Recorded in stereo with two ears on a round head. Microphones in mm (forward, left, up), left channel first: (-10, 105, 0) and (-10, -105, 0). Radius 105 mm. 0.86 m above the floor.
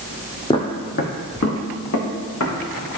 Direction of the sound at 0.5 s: 20° left (ahead or behind).